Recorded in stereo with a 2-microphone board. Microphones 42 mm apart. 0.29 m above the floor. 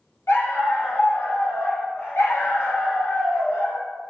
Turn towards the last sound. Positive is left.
turn(degrees=70)  # may be behind; listen again after turning